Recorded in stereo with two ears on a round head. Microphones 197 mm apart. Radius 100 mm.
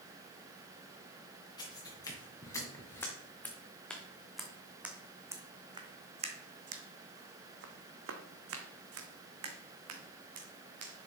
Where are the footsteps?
20° left (ahead or behind), 3.5 m; by 11.1 s 70° right (ahead or behind), 3 m.